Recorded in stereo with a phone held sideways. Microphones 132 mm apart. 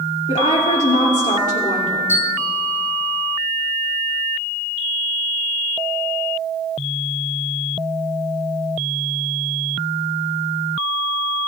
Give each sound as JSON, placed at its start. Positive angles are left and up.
{"t": 0.3, "sound": "a woman speaking", "side_deg": 70, "distance_m": 2.5}
{"t": 2.1, "sound": "a bell", "side_deg": 20, "distance_m": 2.5}